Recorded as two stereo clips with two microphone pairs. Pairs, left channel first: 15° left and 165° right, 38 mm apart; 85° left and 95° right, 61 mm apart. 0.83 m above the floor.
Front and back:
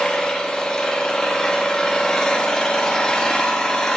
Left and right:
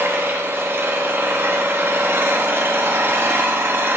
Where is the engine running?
50° right, 1.0 m.